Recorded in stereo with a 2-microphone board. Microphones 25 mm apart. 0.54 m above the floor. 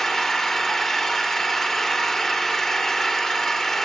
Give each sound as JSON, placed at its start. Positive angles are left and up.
{"t": 0.0, "sound": "an engine running", "side_deg": 20, "distance_m": 1.2}